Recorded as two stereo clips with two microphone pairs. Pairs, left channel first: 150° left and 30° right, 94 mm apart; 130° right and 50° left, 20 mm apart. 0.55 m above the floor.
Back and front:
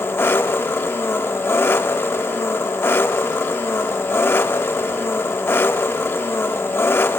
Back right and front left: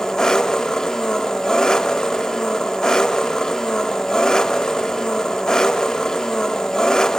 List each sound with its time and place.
0.0 s an engine running: 160° right, 0.7 m